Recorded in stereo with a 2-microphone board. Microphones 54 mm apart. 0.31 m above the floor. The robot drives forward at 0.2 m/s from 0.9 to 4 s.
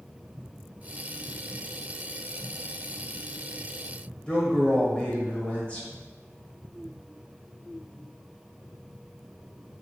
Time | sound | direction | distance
4.3 | a man speaking | 20° left (ahead or behind) | 1.1 m